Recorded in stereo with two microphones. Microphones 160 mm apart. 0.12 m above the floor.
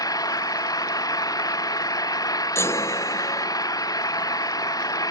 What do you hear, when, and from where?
0.0 s an engine running: 20° left (ahead or behind)
2.5 s a chime: 15° left (ahead or behind)